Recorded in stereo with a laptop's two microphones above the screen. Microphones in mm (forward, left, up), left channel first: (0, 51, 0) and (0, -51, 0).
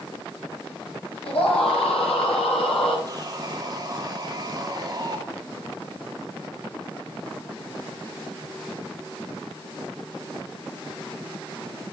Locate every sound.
1.2 s a scream: 80° left, 5.5 m; by 3.0 s 75° left (ahead or behind), 6 m
3.1 s sawing: 40° right (ahead or behind), 2 m